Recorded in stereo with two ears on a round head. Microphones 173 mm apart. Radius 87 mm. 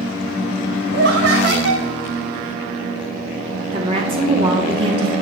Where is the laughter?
55° right (ahead or behind), 1.0 m.